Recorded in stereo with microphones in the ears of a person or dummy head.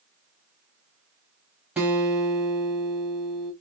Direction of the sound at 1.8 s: 5° right (ahead or behind).